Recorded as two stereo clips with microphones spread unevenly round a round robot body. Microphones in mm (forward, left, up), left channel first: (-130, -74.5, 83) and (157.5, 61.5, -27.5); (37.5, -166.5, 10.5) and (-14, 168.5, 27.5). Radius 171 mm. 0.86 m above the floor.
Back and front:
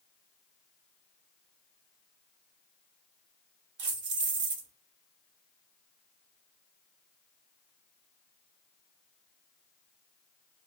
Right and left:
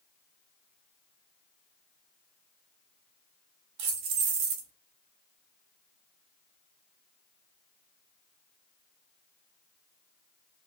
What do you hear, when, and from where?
3.8 s keys jangling: 75° left, 0.8 m